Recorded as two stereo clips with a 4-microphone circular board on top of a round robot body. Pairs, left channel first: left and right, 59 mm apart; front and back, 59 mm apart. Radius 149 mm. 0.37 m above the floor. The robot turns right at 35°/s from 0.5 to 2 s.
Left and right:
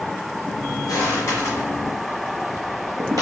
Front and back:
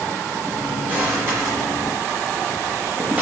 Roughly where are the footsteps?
Behind left.